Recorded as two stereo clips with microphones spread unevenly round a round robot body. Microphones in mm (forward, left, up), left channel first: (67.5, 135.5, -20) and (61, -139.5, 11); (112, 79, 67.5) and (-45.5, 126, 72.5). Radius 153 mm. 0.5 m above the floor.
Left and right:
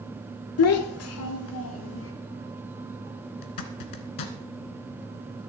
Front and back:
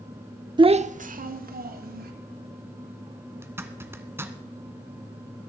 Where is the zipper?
85° left, 1.6 m.